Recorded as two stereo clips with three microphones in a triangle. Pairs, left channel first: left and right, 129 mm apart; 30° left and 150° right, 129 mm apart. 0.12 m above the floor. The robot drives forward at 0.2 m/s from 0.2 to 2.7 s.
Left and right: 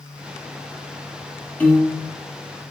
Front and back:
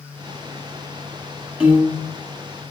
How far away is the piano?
About 1.8 m.